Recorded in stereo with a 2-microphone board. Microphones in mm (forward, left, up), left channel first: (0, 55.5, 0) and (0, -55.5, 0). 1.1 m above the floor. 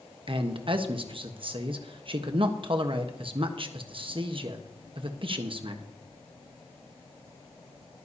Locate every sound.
0.3 s a man speaking: 50° right (ahead or behind), 1.2 m